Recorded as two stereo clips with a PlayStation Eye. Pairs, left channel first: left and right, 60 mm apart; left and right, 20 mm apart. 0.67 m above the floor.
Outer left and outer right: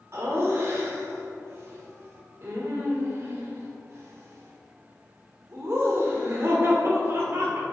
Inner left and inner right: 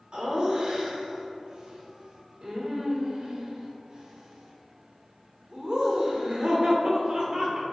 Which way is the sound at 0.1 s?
45° right (ahead or behind).